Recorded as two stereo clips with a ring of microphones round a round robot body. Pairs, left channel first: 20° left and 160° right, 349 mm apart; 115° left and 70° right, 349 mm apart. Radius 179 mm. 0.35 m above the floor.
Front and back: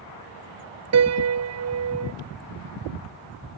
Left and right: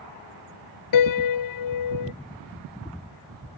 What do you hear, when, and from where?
0.9 s a piano: 150° left